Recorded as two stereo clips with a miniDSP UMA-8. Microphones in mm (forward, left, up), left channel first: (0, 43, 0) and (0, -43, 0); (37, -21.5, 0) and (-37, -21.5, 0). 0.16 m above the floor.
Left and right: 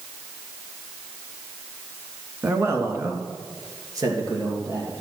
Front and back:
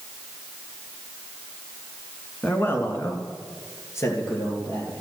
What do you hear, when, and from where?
2.4 s a man speaking: 50° right, 1.4 m